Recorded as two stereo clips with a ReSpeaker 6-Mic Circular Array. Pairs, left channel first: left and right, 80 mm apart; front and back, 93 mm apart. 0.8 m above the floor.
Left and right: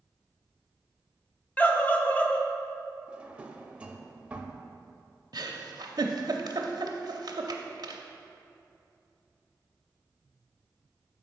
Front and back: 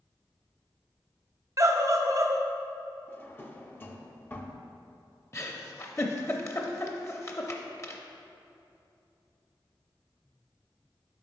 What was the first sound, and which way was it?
A scream, 150° left.